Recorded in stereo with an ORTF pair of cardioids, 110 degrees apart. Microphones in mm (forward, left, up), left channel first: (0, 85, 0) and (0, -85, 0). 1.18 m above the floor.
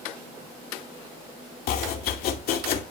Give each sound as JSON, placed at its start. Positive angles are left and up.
{"t": 1.7, "sound": "chopping", "azimuth_deg": 65, "distance_m": 2.5}